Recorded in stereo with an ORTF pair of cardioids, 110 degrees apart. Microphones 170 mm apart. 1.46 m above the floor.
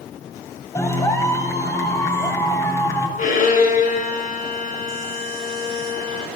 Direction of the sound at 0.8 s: 15° left.